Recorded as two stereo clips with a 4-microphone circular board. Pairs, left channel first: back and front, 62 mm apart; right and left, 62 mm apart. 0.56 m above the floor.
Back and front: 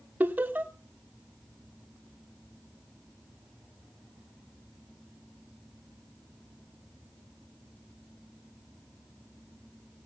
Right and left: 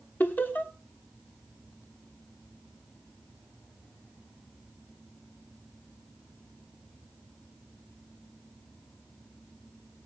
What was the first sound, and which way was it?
Laughter, 45° right.